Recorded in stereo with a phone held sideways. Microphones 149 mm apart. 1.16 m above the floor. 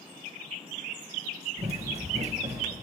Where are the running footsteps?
45° right (ahead or behind), 1.6 m; by 2.7 s 50° right (ahead or behind), 1.8 m.